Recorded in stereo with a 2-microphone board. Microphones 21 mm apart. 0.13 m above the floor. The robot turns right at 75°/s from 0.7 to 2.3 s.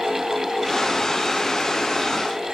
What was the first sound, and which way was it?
Only background noise.